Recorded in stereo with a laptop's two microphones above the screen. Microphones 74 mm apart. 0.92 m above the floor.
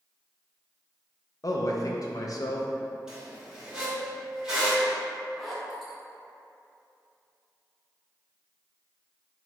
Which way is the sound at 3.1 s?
10° right (ahead or behind).